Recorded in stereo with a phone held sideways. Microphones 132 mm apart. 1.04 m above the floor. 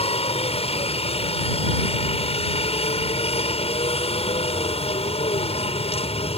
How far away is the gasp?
No gasp in this recording.